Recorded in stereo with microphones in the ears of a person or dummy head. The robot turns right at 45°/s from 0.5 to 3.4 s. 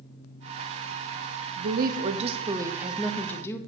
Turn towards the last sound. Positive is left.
turn(degrees=20)